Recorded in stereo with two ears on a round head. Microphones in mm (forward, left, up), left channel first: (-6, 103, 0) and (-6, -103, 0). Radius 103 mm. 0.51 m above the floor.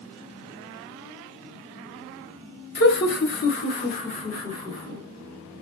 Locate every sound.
2.8 s laughter: 45° left (ahead or behind), 1.0 m; by 5.0 s 25° left (ahead or behind), 1.5 m